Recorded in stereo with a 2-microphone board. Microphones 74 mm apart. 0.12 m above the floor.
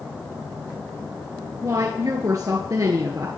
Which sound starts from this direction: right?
A woman speaking, at 1.6 s.